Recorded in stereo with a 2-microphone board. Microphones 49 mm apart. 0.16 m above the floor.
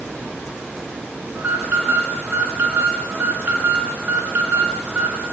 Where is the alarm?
45° right (ahead or behind), 1.6 m.